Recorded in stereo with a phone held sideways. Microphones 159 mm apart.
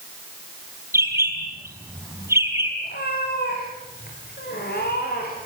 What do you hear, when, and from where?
0.9 s a bird: 15° right (ahead or behind), 4.5 m
2.8 s a cat meowing: 85° left, 9 m